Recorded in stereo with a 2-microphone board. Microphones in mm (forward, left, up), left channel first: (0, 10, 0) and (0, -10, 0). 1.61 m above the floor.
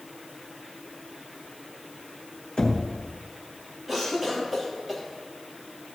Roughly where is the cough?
Centre.